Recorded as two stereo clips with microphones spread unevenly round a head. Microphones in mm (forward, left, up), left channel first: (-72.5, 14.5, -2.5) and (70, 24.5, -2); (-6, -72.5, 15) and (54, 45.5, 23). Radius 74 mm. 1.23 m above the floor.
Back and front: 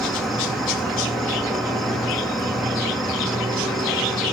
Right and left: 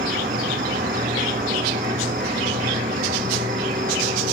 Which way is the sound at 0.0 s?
95° left.